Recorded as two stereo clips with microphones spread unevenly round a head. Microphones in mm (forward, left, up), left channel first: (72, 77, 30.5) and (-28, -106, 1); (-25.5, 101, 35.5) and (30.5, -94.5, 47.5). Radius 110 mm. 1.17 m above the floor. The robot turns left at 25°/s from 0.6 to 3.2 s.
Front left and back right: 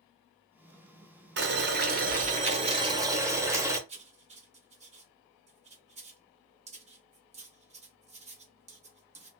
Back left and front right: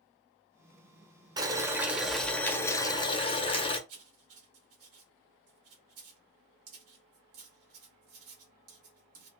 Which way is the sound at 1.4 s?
145° right.